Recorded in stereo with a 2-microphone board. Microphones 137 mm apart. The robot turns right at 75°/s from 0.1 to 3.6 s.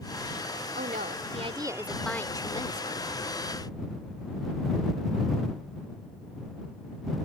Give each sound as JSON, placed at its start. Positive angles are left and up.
{"t": 0.8, "sound": "a woman speaking", "azimuth_deg": -95}